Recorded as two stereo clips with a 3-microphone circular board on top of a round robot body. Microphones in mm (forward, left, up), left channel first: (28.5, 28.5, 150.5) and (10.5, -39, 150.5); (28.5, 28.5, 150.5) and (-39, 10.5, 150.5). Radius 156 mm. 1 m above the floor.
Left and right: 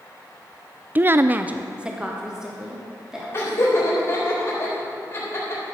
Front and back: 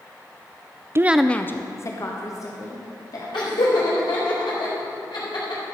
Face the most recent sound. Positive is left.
turn(degrees=20)